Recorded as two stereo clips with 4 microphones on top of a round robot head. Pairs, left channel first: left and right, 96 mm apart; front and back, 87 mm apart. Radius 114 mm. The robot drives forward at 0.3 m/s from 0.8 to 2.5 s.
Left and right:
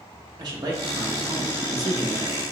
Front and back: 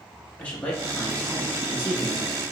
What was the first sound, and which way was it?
A man speaking, 75° right.